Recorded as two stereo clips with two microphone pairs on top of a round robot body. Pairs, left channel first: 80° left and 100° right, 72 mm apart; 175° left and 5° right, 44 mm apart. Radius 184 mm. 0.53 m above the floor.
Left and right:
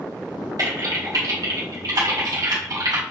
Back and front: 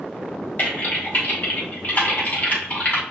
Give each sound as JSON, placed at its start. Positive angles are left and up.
{"t": 0.6, "sound": "typing on a keyboard", "azimuth_deg": -135, "distance_m": 1.1}